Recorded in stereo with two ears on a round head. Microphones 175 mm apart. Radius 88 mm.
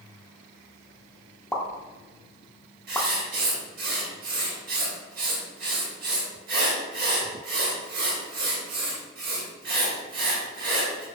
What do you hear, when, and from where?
1.5 s a pop: 5° left (ahead or behind), 0.6 m
2.9 s writing: 45° right (ahead or behind), 1.7 m